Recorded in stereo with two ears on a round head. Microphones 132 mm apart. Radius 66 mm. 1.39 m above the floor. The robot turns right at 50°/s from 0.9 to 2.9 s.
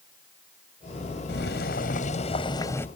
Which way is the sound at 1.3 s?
85° left.